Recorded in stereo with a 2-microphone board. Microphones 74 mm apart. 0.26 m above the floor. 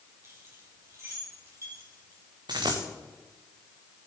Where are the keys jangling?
35° right (ahead or behind), 4.5 m; by 2.2 s 50° right (ahead or behind), 5 m.